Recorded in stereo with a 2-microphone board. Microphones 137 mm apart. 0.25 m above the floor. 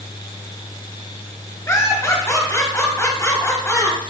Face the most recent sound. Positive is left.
turn(degrees=20)  # may be behind; listen again after turning